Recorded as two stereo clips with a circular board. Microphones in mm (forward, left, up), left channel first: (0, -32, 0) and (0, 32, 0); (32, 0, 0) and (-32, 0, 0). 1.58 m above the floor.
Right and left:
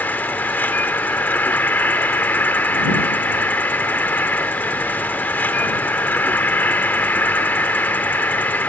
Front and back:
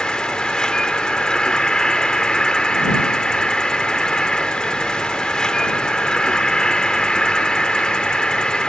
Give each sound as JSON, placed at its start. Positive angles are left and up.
{"t": 0.0, "sound": "an insect", "azimuth_deg": -70}